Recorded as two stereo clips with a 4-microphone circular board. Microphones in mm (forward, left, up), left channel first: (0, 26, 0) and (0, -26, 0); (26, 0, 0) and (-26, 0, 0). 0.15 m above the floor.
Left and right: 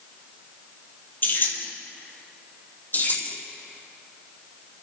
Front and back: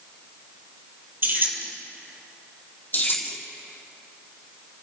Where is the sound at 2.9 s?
50° left, 4 m.